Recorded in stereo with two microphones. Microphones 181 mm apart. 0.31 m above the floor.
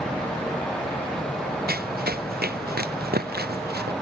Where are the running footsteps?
55° right (ahead or behind); by 3.9 s 60° right (ahead or behind).